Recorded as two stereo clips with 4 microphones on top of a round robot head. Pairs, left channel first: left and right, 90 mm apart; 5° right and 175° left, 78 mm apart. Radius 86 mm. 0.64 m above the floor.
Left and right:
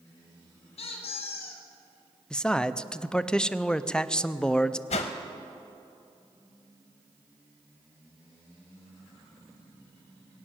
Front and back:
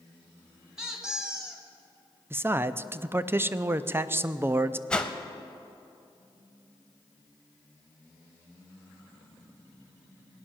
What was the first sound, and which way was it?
A squeak, 95° left.